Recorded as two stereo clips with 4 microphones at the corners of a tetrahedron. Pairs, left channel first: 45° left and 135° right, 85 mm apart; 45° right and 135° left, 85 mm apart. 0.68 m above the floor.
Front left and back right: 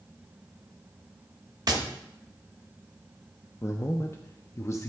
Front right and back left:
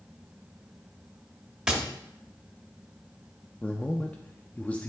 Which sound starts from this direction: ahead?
A man speaking, at 3.6 s.